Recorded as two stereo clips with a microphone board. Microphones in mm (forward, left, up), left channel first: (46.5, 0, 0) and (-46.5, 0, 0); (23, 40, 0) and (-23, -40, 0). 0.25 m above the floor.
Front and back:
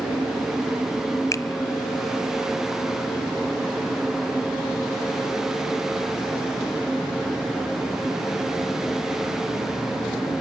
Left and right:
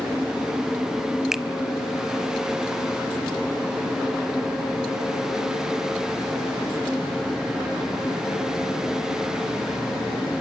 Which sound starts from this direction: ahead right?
A finger snap, at 1.3 s.